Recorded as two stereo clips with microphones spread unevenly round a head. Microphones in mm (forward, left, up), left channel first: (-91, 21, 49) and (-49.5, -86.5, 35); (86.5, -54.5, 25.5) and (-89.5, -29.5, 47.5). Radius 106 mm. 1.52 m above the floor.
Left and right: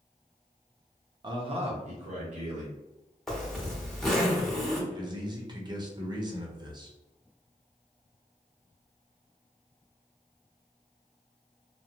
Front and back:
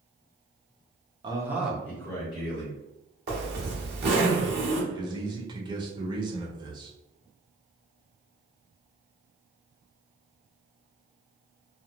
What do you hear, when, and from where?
1.2 s a man speaking: 125° right, 0.7 m; by 2.7 s 70° right, 1.3 m
3.3 s a zipper: 160° right, 1.1 m
4.9 s a man speaking: 125° right, 0.9 m